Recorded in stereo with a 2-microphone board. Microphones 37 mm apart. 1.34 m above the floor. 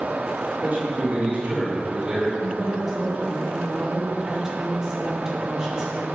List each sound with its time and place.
0.6 s a man speaking: 55° right (ahead or behind), 3 m; by 2.3 s 20° right (ahead or behind), 3 m
2.4 s a woman speaking: 15° right (ahead or behind), 2.5 m